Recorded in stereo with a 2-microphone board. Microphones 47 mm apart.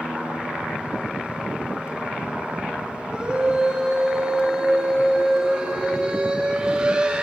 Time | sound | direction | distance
3.1 | a scream | 20° right (ahead or behind) | 4.5 m